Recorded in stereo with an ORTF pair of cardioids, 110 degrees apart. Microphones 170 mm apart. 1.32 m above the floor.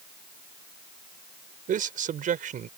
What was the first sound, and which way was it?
A man speaking, 50° right.